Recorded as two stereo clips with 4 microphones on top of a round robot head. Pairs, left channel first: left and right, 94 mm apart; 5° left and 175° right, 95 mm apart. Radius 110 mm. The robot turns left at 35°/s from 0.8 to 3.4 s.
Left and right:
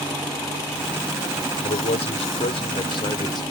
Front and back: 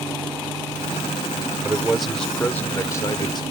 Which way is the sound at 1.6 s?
105° left.